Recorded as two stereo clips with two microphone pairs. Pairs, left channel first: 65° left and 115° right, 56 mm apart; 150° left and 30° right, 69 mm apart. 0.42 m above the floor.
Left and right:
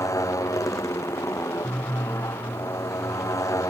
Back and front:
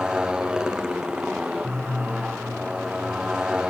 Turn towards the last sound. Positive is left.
turn(degrees=50)